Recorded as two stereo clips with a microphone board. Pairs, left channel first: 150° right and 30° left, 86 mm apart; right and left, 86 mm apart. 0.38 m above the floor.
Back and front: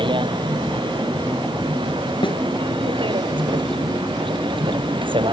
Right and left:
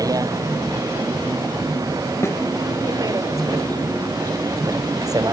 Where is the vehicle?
45° left.